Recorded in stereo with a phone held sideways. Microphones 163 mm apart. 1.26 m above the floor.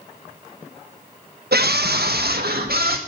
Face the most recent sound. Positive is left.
turn(degrees=-75)  # may be behind; listen again after turning